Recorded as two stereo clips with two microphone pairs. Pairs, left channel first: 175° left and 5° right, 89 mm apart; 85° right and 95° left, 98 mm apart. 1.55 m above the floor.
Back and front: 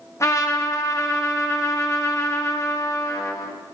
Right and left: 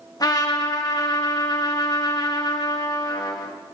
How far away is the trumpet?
About 1.6 m.